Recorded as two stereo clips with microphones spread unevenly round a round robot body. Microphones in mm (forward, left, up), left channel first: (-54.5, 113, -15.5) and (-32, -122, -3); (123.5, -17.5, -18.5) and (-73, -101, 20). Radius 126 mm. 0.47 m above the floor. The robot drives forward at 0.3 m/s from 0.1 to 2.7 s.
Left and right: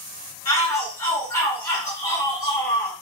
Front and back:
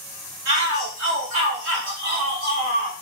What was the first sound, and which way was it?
A shout, 170° left.